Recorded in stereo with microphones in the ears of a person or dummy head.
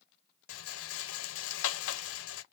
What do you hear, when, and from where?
0.5 s a rattle: 80° left, 0.6 m